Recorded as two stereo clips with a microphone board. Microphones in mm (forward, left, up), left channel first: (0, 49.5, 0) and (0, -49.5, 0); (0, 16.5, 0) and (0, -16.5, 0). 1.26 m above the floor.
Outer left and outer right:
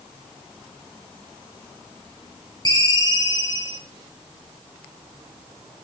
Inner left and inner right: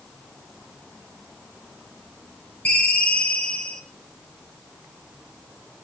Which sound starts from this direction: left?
A ringtone, at 2.6 s.